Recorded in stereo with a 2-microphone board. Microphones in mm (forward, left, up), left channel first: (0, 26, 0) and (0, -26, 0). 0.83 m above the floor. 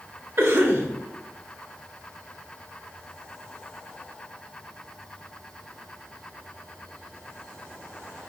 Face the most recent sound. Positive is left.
turn(degrees=-40)  # may be behind; listen again after turning